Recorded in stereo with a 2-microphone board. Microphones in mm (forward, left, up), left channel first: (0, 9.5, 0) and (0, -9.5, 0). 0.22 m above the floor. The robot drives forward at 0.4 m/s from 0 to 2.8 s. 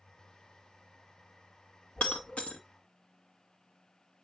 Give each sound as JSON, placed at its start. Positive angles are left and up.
{"t": 2.0, "sound": "breaking glass", "side_deg": 80, "distance_m": 1.8}